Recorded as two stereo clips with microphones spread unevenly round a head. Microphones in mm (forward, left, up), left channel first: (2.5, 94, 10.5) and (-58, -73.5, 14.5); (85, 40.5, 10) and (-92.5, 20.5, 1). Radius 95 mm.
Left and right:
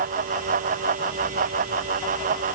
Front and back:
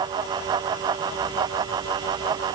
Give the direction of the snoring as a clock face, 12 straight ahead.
I don't hear snoring.